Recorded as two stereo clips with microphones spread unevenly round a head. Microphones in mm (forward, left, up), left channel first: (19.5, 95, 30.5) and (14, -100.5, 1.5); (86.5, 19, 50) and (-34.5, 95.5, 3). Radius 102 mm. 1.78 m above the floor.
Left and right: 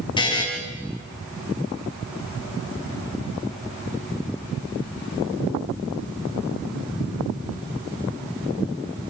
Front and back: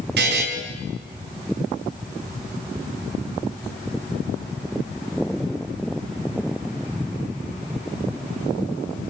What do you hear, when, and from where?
0.2 s a buzzer: 155° left, 4 m